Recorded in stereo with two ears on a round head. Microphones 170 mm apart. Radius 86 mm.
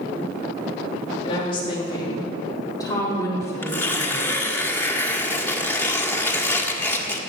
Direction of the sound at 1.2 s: 30° left (ahead or behind).